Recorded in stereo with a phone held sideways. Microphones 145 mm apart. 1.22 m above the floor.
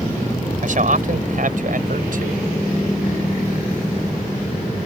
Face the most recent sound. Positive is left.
turn(degrees=-65)  # may be behind; listen again after turning